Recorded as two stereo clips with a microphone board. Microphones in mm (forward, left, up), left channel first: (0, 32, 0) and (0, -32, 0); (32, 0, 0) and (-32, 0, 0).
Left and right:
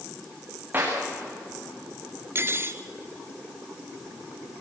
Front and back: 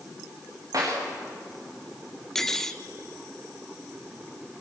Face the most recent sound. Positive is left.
turn(degrees=-80)